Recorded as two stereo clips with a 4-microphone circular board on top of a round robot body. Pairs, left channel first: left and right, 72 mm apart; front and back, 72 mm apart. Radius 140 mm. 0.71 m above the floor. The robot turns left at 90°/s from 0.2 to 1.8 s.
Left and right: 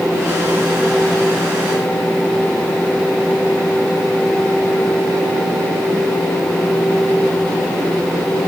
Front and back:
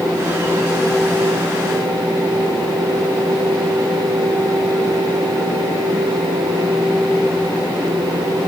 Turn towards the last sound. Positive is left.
No sound to turn to.